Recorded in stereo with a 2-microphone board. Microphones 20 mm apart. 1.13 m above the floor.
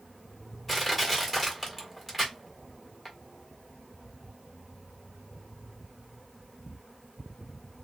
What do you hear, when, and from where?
0.7 s crushing: 5° left (ahead or behind), 1.4 m